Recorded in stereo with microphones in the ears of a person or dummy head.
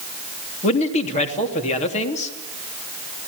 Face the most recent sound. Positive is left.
turn(degrees=40)  # may be behind; listen again after turning